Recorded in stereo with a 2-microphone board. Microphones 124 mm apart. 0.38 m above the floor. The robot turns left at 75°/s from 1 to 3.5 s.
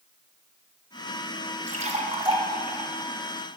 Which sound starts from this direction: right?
A splash, at 1.7 s.